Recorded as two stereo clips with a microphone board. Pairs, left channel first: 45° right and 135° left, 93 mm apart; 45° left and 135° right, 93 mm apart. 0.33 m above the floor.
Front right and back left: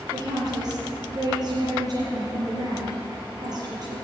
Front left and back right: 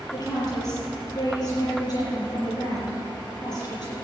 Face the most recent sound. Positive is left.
turn(degrees=90)